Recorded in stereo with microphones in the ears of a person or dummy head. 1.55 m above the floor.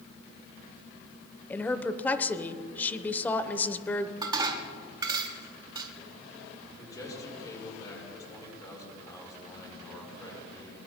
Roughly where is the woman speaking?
Centre.